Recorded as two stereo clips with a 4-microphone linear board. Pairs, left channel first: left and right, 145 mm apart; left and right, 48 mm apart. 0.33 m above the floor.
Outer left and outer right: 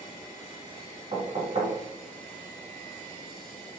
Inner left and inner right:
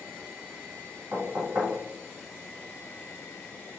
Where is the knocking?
55° right (ahead or behind), 1.9 m.